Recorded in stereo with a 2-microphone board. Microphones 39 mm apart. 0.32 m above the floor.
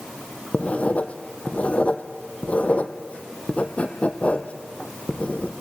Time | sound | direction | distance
0.5 | writing | 40° left (ahead or behind) | 1.7 m